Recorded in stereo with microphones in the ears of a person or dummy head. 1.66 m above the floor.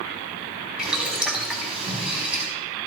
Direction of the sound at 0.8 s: Centre (ahead or behind).